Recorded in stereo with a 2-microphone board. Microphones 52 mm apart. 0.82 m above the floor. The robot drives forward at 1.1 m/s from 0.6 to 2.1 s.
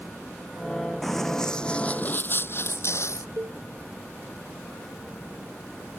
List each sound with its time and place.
1.0 s running footsteps: 5° left (ahead or behind); by 3.3 s 65° left (ahead or behind)
3.4 s a cowbell: 75° right (ahead or behind)